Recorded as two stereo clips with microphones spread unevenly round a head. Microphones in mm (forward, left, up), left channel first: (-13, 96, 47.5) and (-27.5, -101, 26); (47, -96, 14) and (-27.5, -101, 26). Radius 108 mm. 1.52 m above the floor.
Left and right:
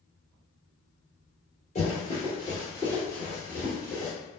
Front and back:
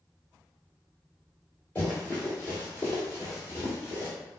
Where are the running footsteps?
80° left, 1.8 m; by 4.1 s 25° right, 1.7 m.